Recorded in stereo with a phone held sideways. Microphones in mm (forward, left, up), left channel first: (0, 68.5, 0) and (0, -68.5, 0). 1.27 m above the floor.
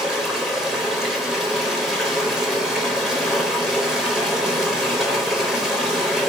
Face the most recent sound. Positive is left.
turn(degrees=-5)  # may be behind; listen again after turning